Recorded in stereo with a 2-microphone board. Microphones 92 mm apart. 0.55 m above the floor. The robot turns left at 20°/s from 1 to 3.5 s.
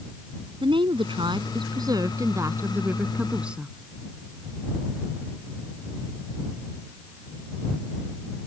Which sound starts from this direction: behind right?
A woman speaking, at 0.6 s.